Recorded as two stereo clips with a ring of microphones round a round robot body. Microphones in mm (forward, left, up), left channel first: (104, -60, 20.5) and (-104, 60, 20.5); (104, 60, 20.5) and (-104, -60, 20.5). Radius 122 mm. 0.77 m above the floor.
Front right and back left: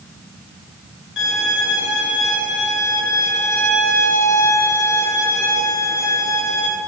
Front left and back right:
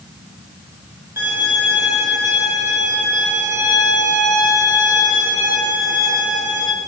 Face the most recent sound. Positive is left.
turn(degrees=-70)